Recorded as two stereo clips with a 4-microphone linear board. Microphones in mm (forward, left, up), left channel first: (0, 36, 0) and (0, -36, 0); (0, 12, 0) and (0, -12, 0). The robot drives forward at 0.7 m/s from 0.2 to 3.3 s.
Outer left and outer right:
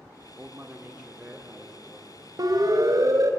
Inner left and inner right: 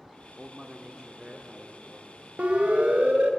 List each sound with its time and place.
0.4 s a man speaking: 20° right (ahead or behind), 1.3 m; by 3.4 s 10° right (ahead or behind), 3 m
2.4 s a siren: 60° right (ahead or behind), 2 m; by 3.3 s 50° right (ahead or behind), 2.5 m